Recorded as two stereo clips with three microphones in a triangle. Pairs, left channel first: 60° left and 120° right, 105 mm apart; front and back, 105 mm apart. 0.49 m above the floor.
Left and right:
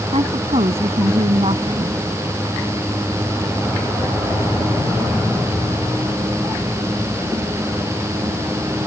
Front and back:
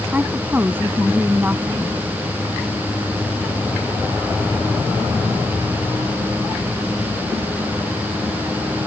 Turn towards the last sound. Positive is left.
turn(degrees=-110)